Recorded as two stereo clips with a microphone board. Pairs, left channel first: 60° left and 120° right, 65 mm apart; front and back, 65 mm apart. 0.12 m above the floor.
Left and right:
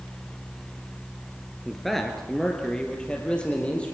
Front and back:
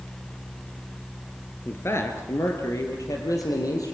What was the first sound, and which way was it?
A man speaking, 30° right.